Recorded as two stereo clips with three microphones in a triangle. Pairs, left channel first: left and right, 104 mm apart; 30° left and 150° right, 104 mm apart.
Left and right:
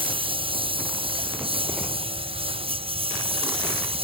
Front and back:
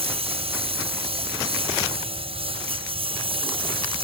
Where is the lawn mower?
125° right; by 4.0 s 120° right.